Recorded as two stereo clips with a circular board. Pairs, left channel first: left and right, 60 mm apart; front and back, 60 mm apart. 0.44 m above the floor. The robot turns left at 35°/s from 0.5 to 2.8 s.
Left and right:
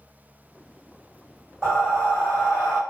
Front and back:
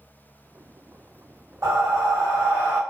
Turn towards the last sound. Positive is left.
turn(degrees=130)